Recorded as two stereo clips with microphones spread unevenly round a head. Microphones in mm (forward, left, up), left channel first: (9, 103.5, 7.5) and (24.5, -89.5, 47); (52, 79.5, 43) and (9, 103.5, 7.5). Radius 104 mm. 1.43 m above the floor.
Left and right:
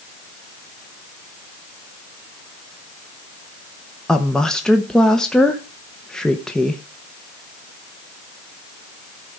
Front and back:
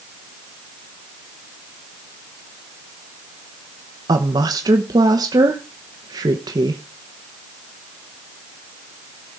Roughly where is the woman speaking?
Behind.